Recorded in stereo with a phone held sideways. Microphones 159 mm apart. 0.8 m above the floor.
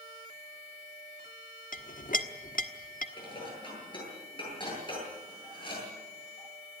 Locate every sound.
1.7 s a clink: 60° left (ahead or behind), 1.2 m
3.2 s dishes clattering: 30° left (ahead or behind), 9.5 m